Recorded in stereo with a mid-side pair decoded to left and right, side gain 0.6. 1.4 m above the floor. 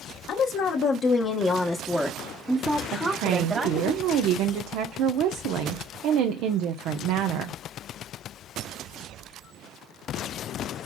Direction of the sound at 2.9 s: 65° right.